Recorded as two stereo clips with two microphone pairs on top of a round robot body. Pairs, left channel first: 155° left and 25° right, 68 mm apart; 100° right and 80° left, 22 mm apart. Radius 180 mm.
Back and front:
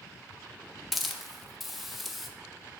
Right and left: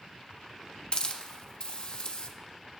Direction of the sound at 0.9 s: 115° right.